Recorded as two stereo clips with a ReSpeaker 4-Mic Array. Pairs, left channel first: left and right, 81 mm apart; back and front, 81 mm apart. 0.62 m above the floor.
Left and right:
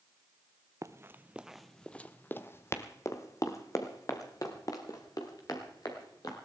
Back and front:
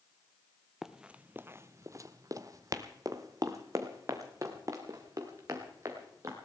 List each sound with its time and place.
0.8 s running footsteps: 85° right, 0.7 m; by 6.3 s 50° left, 3.5 m